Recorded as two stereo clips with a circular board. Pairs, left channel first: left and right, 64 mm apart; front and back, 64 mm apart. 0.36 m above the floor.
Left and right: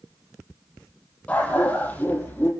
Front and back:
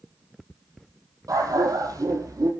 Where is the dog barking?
160° left, 4.5 m; by 2.5 s 155° left, 5.5 m.